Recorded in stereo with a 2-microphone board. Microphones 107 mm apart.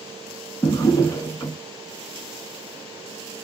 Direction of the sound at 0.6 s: 30° left (ahead or behind).